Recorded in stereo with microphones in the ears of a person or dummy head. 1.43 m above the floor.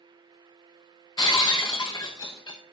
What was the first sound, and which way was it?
Breaking glass, 15° left (ahead or behind).